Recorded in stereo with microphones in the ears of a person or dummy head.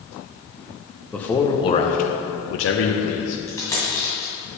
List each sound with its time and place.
1.1 s a man speaking: centre (ahead or behind), 0.8 m; by 3.4 s 75° left (ahead or behind), 1.0 m
3.5 s a dropped coin: 10° left (ahead or behind), 2.5 m